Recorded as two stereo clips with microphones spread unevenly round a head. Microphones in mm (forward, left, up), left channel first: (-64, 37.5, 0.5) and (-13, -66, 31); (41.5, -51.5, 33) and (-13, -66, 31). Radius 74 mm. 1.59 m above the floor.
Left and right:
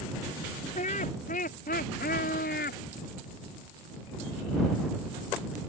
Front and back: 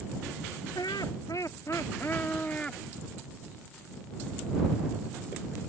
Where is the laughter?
70° left; by 2.8 s 100° left.